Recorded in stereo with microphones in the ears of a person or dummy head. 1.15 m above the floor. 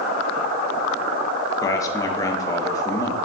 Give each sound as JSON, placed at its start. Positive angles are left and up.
{"t": 1.6, "sound": "a man speaking", "side_deg": 15, "distance_m": 0.7}